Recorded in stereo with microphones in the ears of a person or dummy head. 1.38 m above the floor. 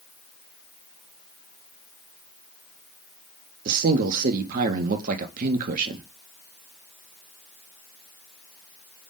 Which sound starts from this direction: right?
A man speaking, at 3.6 s.